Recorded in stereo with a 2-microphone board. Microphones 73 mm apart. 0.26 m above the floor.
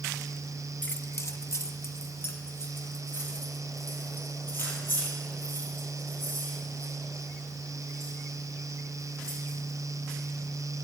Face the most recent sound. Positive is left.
turn(degrees=30)  # may be behind; listen again after turning